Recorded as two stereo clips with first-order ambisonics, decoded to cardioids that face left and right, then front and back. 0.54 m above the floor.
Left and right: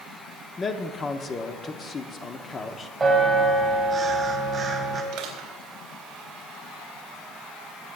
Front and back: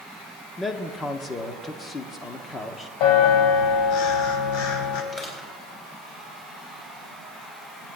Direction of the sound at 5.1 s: 60° right.